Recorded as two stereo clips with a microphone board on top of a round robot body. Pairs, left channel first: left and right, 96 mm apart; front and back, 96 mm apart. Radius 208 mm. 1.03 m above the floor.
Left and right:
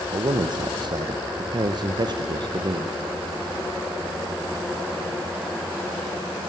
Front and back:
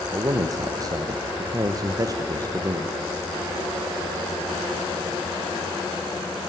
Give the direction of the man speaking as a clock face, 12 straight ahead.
4 o'clock.